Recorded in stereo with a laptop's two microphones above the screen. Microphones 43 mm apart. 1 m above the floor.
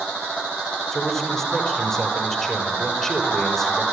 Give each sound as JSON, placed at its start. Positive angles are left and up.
{"t": 0.9, "sound": "a man speaking", "side_deg": 10, "distance_m": 4.5}